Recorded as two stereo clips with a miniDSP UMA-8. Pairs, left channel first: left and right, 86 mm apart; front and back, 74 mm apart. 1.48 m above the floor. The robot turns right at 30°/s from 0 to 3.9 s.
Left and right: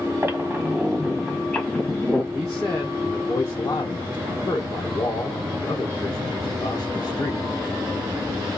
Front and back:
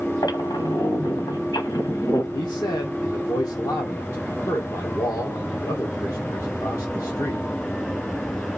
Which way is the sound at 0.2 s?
35° right.